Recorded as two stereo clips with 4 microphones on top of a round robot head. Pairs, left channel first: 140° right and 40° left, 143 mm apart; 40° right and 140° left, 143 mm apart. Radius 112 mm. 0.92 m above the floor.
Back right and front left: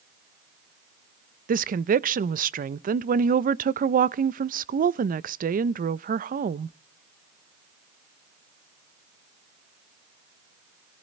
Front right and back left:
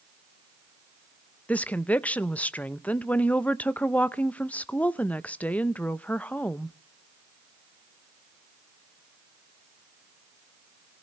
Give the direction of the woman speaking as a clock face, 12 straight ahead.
11 o'clock.